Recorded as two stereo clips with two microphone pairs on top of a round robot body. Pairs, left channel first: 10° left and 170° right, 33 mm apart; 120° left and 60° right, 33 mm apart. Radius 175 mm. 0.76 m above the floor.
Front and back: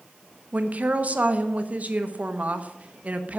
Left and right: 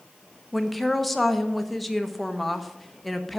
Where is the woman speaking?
140° right, 1.1 m.